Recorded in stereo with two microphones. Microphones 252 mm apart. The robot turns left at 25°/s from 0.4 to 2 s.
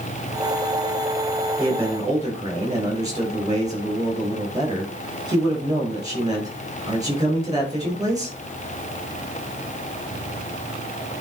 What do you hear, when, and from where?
1.6 s a man speaking: 5° right (ahead or behind), 5.5 m; by 8.4 s 15° right (ahead or behind), 5.5 m